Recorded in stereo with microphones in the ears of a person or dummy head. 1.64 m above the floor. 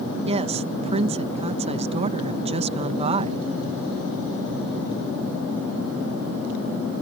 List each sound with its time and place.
0.2 s a woman speaking: 30° right (ahead or behind)